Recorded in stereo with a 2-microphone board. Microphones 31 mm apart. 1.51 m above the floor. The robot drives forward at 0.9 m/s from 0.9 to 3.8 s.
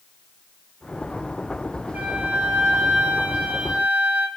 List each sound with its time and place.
1.9 s a flute: 55° right (ahead or behind), 1.5 m; by 4.3 s 50° right (ahead or behind), 1.6 m